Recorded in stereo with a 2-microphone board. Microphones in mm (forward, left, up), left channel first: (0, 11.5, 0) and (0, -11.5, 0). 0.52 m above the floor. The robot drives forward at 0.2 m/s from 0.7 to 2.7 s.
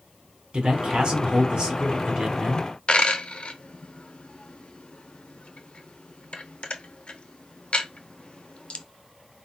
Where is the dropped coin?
50° left (ahead or behind), 0.6 m.